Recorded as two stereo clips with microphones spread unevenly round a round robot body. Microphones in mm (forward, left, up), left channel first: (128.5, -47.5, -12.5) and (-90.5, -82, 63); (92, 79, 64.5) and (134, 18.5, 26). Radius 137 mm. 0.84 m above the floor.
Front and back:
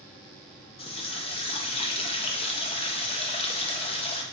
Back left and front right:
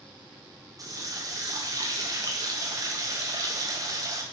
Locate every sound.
0.8 s a running tap: 50° right, 0.6 m